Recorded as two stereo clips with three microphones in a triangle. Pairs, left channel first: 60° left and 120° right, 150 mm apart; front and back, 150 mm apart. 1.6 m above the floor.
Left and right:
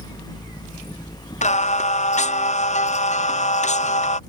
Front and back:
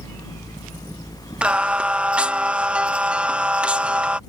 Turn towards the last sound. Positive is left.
turn(degrees=95)